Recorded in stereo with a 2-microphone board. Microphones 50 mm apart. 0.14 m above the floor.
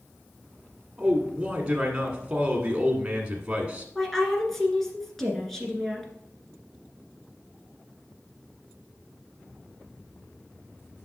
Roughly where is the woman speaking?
Centre.